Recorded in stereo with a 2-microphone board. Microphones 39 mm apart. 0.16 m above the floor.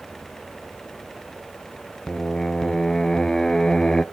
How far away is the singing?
About 0.5 m.